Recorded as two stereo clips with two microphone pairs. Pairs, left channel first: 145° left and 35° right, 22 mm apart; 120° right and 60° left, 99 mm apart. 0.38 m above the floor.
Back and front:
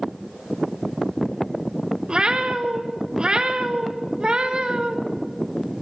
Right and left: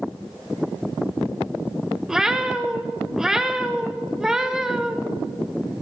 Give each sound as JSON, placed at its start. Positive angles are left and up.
{"t": 2.1, "sound": "a cat meowing", "azimuth_deg": -20, "distance_m": 0.7}